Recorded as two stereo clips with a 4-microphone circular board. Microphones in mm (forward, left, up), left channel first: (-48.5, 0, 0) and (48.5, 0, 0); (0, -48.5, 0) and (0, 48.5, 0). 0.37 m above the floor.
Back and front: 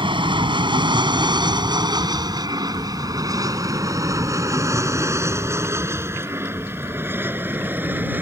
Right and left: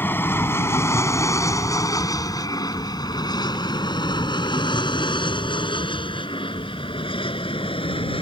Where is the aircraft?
25° right; by 8.2 s 70° right.